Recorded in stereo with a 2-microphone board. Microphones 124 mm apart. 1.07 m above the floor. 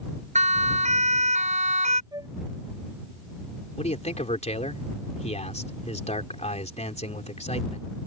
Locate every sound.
0.3 s a siren: 70° right (ahead or behind); by 2.0 s 75° right (ahead or behind)
2.1 s a flute: 30° right (ahead or behind)
3.8 s a man speaking: 65° left (ahead or behind)